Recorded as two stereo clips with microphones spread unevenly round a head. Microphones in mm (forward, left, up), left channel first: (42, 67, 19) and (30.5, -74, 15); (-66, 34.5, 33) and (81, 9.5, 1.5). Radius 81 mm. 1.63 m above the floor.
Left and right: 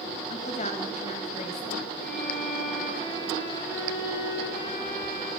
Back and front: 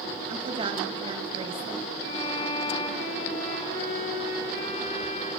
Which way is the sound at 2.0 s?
135° left.